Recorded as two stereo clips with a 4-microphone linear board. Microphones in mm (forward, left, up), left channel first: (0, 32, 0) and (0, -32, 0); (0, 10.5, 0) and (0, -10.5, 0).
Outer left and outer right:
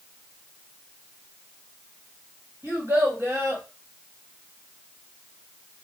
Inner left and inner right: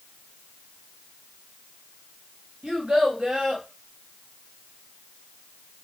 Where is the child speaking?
45° right (ahead or behind), 2.0 m.